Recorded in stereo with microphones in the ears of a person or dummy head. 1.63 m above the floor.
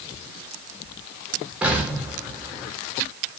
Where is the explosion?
10° right (ahead or behind), 7 m.